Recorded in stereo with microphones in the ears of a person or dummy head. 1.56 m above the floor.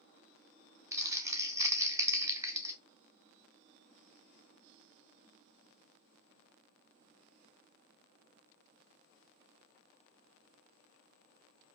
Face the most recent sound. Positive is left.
turn(degrees=-15)  # may be behind; listen again after turning